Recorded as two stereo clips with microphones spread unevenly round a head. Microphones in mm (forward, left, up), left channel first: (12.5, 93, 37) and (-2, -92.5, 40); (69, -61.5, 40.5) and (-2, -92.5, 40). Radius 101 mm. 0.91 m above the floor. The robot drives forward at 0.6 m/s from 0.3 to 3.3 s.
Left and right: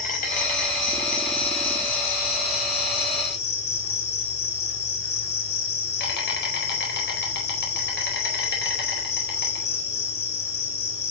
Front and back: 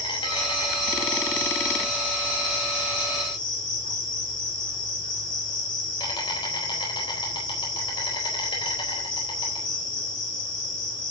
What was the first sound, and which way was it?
An insect, 35° left.